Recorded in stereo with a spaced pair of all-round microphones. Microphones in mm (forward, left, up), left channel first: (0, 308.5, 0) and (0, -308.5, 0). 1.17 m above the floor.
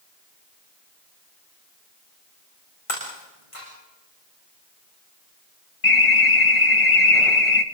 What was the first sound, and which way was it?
Breaking glass, 60° left (ahead or behind).